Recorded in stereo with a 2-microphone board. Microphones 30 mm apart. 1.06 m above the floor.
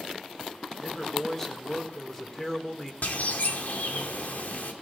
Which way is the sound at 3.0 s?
75° left (ahead or behind).